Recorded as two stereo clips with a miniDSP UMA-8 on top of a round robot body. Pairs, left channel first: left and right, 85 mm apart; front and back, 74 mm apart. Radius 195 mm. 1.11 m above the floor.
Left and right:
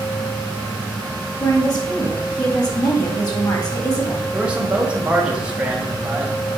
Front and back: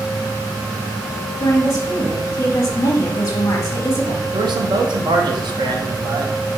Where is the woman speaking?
50° left, 1.9 m.